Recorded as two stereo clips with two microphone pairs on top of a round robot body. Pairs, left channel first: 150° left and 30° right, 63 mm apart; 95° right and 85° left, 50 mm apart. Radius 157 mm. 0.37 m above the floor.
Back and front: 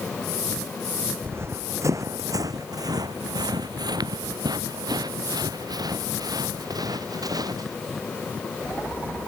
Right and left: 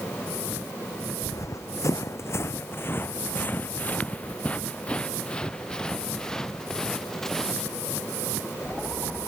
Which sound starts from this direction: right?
Running footsteps, at 1.2 s.